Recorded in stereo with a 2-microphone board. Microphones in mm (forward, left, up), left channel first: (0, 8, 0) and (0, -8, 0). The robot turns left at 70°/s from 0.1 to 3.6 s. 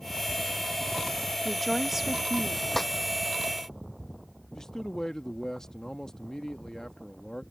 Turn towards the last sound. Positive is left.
turn(degrees=40)  # may be behind; listen again after turning